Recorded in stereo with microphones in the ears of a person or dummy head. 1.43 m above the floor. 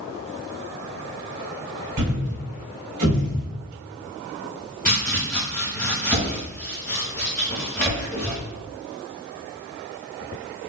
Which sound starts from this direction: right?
A thud, at 2.0 s.